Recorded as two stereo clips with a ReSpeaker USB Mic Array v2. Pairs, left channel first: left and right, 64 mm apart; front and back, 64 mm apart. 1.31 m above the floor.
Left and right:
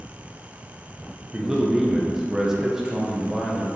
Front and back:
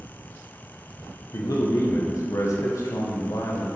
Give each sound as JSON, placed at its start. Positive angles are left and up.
{"t": 1.3, "sound": "a man speaking", "azimuth_deg": -10, "distance_m": 1.1}